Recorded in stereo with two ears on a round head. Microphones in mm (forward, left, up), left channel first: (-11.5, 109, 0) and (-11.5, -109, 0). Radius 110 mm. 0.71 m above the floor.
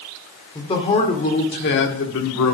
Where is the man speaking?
15° left (ahead or behind), 1.9 m; by 2.5 s 65° left (ahead or behind), 1.7 m.